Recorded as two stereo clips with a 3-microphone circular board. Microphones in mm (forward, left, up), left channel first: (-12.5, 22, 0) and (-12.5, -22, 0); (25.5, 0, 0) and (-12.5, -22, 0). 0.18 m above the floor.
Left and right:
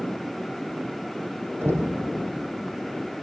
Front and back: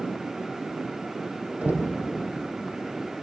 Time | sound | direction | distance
1.6 | knocking | 100° right | 5 m